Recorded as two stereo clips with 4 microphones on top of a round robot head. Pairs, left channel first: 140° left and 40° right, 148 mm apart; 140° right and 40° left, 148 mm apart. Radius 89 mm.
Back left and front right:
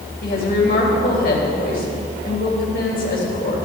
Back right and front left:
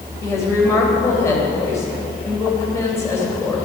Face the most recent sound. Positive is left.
turn(degrees=150)